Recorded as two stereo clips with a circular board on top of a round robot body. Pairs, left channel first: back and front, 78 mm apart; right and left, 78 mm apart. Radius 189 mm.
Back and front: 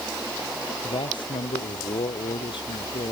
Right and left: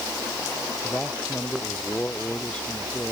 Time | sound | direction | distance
0.8 | a man speaking | 165° right | ?